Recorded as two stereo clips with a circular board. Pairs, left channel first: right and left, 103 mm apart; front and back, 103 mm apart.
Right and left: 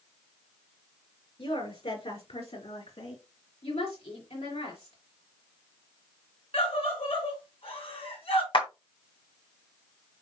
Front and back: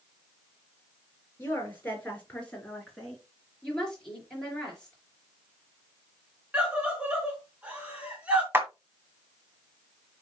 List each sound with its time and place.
1.4 s a woman speaking: 70° right, 4 m; by 3.2 s 85° right, 3 m
3.6 s a woman speaking: 80° right, 5 m
6.5 s a scream: 100° right, 3.5 m
8.5 s a clap: 115° right, 1.7 m